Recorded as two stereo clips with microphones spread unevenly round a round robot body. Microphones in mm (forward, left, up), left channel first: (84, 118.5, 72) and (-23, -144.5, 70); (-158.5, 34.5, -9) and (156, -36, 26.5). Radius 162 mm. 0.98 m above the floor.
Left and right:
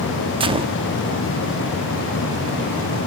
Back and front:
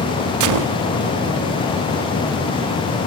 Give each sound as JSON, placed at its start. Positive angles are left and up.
{"t": 0.4, "sound": "a gunshot", "azimuth_deg": -40, "distance_m": 0.8}